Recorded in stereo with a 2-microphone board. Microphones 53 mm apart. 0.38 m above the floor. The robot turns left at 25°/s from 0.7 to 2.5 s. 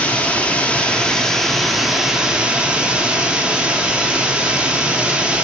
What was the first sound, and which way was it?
Running water, 25° left.